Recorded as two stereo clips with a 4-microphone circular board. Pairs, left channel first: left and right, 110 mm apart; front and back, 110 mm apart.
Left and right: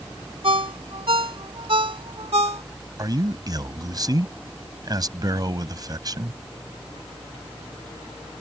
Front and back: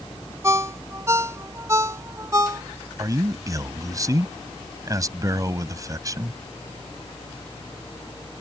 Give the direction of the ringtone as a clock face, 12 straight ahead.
4 o'clock.